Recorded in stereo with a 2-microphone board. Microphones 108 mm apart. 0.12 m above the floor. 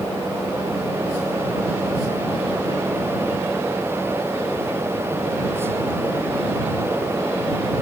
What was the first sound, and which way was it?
Only background noise.